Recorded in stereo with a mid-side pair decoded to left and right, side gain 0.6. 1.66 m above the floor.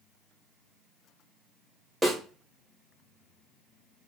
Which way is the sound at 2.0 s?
10° right.